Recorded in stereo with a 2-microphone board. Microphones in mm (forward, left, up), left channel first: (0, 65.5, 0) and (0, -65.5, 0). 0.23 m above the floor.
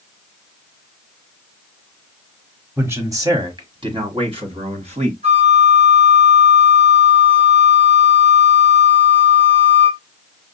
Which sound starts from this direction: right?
A flute, at 5.2 s.